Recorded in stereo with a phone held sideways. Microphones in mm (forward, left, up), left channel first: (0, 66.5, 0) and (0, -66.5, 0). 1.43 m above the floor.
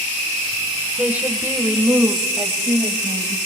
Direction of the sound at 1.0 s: 10° right (ahead or behind).